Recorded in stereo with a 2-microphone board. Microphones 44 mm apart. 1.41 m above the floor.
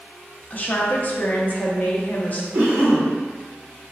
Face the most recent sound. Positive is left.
turn(degrees=-65)  # may be behind; listen again after turning